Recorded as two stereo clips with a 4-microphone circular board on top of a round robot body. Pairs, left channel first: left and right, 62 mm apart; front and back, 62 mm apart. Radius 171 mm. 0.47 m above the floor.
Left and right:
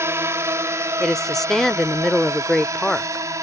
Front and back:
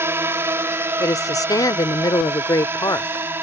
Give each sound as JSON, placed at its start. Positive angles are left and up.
{"t": 0.0, "sound": "a drone", "azimuth_deg": -135}
{"t": 1.0, "sound": "a woman speaking", "azimuth_deg": 5}